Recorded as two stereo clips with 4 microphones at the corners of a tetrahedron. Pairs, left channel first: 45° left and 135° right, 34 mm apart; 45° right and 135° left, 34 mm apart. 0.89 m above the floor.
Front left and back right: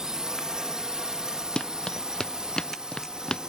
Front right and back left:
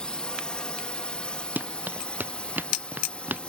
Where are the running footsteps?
110° left.